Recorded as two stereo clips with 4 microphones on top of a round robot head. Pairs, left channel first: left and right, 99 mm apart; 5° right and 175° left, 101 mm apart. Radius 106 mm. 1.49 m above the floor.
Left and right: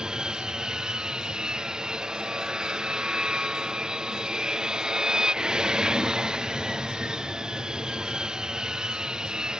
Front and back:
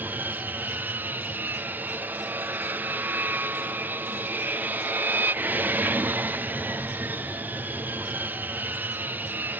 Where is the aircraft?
160° right.